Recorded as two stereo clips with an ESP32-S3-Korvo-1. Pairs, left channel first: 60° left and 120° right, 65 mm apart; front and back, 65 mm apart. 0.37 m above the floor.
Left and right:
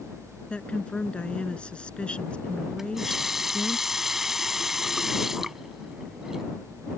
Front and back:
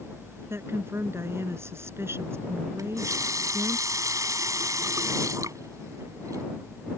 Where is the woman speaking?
135° left.